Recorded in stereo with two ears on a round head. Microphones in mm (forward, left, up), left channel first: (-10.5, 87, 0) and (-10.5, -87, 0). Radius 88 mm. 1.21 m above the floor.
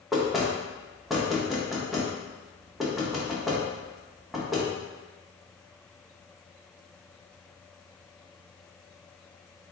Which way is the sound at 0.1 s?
Centre (ahead or behind).